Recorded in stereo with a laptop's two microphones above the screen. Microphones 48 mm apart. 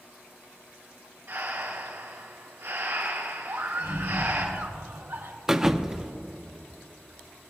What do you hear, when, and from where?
1.3 s breathing: 75° right (ahead or behind), 3.5 m
3.5 s a scream: 75° right (ahead or behind), 2 m
5.5 s a thud: 10° right (ahead or behind), 0.6 m